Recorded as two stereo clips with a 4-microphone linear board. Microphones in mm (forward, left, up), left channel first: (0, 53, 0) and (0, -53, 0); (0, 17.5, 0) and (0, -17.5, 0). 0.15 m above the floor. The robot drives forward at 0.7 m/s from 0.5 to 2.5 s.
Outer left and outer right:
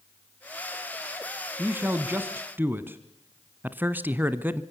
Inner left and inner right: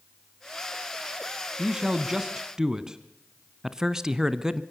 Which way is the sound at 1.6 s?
20° right (ahead or behind).